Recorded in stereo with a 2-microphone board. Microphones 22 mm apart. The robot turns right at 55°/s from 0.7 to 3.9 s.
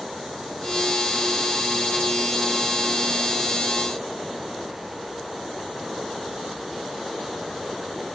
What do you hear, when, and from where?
Only background noise.